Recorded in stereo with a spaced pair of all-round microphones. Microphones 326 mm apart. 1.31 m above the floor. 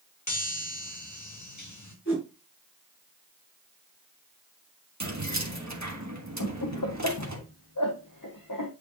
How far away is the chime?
About 1.9 m.